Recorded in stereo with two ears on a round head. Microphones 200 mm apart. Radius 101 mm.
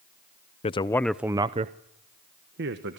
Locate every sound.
0.6 s a man speaking: 25° left (ahead or behind), 0.6 m; by 3.0 s 55° right (ahead or behind), 1.4 m